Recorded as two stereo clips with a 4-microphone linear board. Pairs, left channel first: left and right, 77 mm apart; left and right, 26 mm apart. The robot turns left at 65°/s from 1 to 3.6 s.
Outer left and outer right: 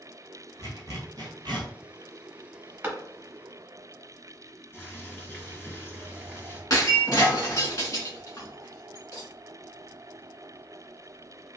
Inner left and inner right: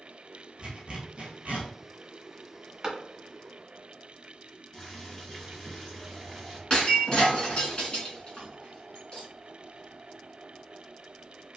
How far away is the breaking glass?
About 1.8 m.